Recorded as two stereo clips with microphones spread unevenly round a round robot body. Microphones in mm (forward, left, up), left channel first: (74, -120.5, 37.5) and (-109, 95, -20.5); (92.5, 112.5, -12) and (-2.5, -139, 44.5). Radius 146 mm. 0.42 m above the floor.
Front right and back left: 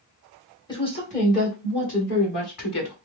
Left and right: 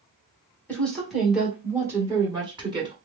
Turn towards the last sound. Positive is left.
turn(degrees=-35)